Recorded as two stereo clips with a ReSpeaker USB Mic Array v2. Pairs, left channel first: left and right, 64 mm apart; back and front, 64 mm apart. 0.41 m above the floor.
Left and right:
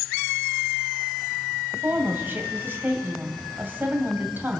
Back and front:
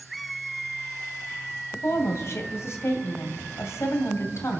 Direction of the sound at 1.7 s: 145° right.